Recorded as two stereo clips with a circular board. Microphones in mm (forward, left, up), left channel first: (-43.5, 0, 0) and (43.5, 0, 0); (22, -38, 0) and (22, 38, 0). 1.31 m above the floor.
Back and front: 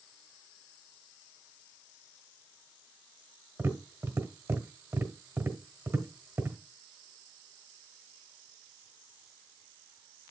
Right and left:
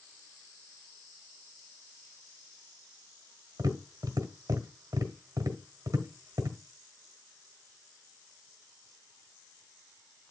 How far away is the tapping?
About 1.5 m.